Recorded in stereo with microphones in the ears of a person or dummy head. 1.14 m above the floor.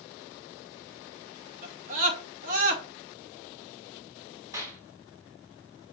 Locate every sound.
1.6 s a scream: 45° right (ahead or behind), 2.5 m
4.5 s a clap: 15° right (ahead or behind), 3 m